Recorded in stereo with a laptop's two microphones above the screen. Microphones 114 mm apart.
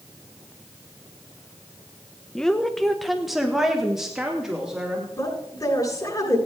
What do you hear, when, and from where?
2.4 s a woman speaking: 5° left (ahead or behind), 0.8 m; by 5.0 s 5° right (ahead or behind), 2.5 m
5.1 s a woman speaking: 30° left (ahead or behind), 8 m